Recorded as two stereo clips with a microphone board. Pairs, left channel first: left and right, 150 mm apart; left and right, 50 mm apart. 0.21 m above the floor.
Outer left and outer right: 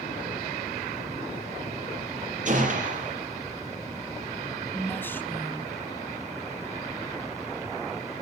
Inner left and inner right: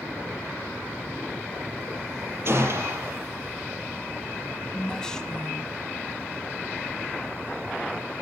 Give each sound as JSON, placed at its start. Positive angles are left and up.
{"t": 2.5, "sound": "a gunshot", "side_deg": -50, "distance_m": 5.0}
{"t": 4.7, "sound": "a woman speaking", "side_deg": 15, "distance_m": 1.9}